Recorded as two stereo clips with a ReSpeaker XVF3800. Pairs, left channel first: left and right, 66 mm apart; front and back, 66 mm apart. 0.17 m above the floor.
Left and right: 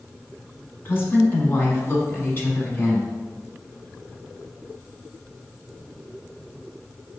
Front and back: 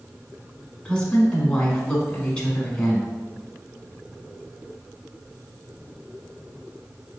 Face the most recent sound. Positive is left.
turn(degrees=65)